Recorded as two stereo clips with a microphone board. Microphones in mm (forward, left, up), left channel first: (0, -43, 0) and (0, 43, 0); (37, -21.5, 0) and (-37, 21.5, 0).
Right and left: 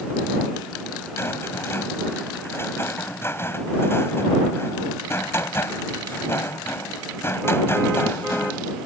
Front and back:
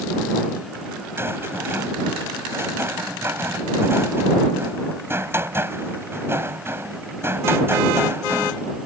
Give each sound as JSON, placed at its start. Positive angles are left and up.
{"t": 1.2, "sound": "a rattle", "azimuth_deg": -150}